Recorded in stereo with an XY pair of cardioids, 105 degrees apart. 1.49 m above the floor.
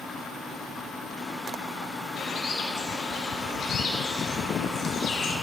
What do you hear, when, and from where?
2.2 s a bird: 65° left, 2.0 m